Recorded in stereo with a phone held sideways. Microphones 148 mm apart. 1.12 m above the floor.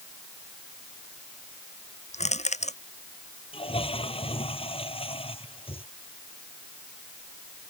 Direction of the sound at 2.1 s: 50° left (ahead or behind).